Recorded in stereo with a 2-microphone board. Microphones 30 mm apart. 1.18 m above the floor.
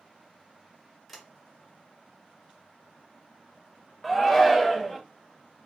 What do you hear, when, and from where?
1.1 s a sliding door: centre (ahead or behind), 0.8 m
4.0 s a shout: 5° left (ahead or behind), 0.5 m